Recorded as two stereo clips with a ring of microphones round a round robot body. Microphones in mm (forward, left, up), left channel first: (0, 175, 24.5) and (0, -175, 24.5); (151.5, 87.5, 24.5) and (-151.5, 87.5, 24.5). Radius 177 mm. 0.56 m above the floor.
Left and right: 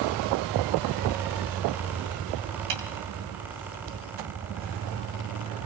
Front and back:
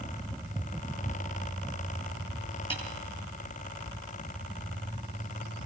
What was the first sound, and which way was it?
A snare drum, 75° right.